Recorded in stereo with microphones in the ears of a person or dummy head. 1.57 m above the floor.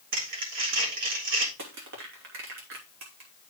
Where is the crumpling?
65° right (ahead or behind), 3.5 m.